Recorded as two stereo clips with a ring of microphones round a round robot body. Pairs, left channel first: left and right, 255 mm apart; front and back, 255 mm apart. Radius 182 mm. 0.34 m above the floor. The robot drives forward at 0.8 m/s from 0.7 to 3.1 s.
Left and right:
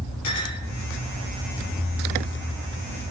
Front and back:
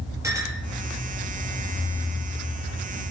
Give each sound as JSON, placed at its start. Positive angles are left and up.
{"t": 0.2, "sound": "a clink", "azimuth_deg": 100, "distance_m": 5.0}